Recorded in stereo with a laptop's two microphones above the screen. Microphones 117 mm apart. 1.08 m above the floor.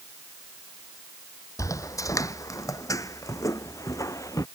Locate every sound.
1.6 s footsteps: 25° left (ahead or behind); by 4.5 s 30° left (ahead or behind)